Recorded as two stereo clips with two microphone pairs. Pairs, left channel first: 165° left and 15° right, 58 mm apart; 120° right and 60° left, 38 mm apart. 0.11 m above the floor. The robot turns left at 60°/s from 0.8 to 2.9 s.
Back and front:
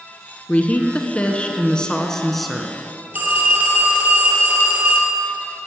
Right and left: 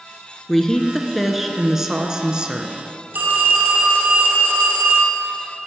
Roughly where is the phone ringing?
Ahead left.